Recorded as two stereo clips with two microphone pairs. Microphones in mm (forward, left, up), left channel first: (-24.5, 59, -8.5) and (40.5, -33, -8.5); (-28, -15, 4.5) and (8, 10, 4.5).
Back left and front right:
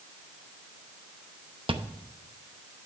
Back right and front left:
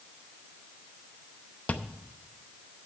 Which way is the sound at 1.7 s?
90° right.